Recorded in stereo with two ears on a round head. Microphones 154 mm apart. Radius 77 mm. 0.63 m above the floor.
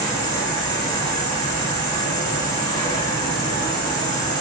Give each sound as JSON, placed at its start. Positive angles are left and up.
{"t": 0.0, "sound": "an insect", "side_deg": 25, "distance_m": 1.1}